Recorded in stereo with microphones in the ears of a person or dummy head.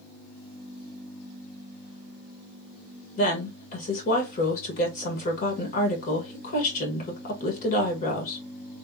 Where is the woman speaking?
50° left (ahead or behind), 1.8 m.